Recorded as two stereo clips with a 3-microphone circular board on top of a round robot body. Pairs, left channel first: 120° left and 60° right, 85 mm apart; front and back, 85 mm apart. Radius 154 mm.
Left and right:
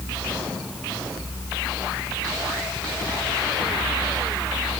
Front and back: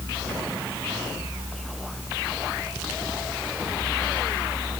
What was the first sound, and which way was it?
Only background noise.